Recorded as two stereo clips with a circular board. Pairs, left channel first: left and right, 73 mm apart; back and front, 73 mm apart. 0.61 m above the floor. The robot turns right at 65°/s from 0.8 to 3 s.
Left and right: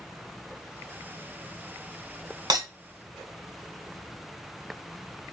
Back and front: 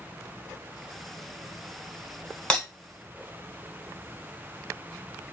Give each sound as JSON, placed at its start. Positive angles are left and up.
{"t": 2.5, "sound": "breaking glass", "azimuth_deg": -100, "distance_m": 2.0}